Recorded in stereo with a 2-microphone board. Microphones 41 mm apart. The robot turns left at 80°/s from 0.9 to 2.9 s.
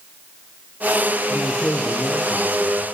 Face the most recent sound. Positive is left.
turn(degrees=-80)